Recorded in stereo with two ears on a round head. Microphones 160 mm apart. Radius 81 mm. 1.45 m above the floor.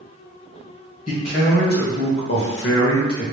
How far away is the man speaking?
About 1.6 m.